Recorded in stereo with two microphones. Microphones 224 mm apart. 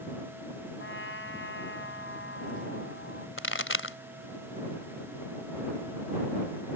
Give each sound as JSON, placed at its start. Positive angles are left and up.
{"t": 0.8, "sound": "a trumpet", "side_deg": 65}
{"t": 3.4, "sound": "a pop", "side_deg": 65}